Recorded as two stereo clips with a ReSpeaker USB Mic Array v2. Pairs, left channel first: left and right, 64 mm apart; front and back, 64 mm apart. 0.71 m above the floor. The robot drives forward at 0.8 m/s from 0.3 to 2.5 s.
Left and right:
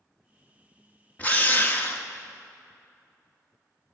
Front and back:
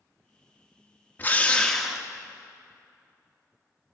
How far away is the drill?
About 1.1 m.